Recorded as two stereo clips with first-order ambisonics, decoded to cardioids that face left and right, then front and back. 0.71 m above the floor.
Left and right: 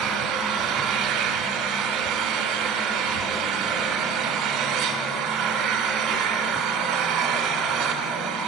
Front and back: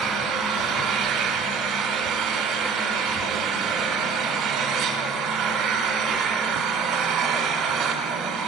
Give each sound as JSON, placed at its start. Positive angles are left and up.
{"t": 0.0, "sound": "an engine running", "azimuth_deg": -130, "distance_m": 3.0}